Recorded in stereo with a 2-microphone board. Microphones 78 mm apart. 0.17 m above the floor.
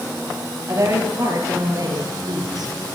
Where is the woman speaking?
40° right (ahead or behind), 4 m; by 2.7 s 60° right (ahead or behind), 3 m.